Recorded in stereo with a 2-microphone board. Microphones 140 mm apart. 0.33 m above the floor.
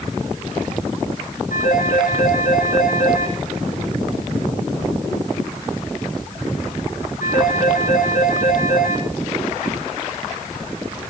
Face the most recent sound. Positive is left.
turn(degrees=85)